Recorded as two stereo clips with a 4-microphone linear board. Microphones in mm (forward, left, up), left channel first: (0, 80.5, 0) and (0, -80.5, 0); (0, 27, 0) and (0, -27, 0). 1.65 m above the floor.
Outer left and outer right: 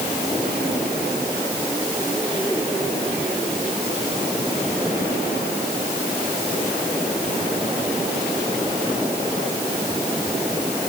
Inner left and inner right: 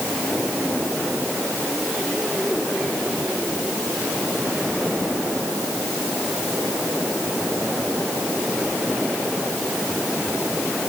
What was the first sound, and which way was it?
Only background noise.